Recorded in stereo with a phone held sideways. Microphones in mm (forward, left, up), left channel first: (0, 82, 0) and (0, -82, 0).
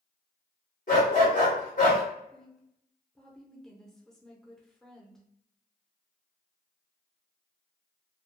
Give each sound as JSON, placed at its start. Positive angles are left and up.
{"t": 0.9, "sound": "a dog barking", "side_deg": 50, "distance_m": 1.3}
{"t": 2.3, "sound": "a woman speaking", "side_deg": 5, "distance_m": 0.7}